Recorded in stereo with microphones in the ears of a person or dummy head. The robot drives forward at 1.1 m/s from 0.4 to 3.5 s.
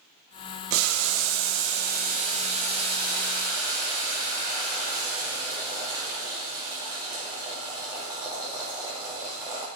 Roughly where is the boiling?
Right.